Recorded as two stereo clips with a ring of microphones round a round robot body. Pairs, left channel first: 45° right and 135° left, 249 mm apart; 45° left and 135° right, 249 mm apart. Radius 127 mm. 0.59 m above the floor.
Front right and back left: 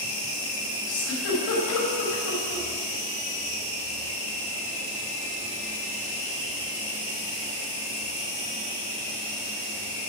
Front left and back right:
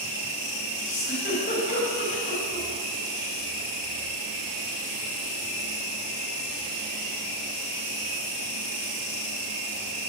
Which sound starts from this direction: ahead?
A giggle, at 0.9 s.